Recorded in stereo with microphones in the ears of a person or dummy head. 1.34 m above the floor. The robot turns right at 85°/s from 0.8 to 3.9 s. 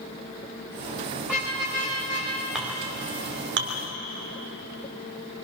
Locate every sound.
1.2 s a car horn: straight behind, 8.5 m; by 2.3 s 90° right, 8.5 m
2.5 s a clink: 5° right (ahead or behind), 2.5 m; by 3.7 s 75° right (ahead or behind), 2.5 m